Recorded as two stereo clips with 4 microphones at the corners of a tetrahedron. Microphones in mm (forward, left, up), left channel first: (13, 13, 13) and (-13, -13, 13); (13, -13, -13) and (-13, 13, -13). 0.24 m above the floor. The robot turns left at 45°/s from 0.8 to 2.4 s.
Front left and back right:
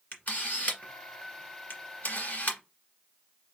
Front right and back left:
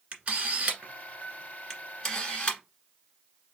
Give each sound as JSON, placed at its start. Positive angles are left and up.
{"t": 0.1, "sound": "a camera shutter", "azimuth_deg": 85, "distance_m": 1.7}